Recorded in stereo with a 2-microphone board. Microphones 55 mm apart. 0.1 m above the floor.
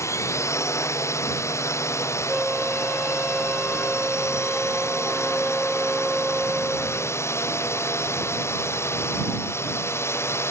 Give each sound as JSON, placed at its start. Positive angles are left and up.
{"t": 0.0, "sound": "a drone", "side_deg": 60}
{"t": 2.3, "sound": "a flute", "side_deg": -5}